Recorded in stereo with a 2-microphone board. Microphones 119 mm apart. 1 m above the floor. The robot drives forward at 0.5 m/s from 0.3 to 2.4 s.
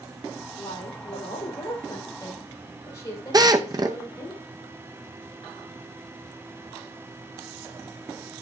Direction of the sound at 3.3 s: 35° right (ahead or behind).